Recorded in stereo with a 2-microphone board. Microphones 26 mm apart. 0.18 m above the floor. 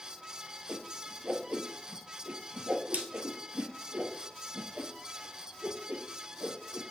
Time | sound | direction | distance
0.7 | a whoosh | 75° right (ahead or behind) | 1.3 m